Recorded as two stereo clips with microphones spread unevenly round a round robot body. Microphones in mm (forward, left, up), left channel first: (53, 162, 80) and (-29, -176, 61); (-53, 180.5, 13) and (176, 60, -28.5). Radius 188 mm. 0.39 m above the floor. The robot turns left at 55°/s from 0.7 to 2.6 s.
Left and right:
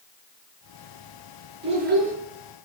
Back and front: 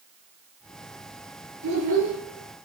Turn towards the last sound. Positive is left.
turn(degrees=-80)